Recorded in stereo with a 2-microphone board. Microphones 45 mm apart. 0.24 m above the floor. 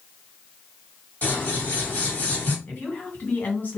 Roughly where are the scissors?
Left.